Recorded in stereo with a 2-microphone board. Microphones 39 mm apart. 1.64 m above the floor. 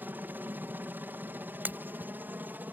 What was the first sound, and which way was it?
A helicopter, 60° right (ahead or behind).